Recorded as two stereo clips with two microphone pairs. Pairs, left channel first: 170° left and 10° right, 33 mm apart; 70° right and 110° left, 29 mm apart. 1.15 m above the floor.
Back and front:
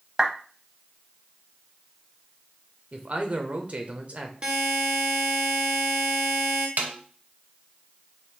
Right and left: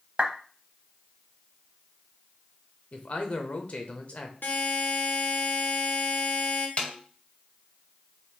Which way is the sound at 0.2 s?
60° left.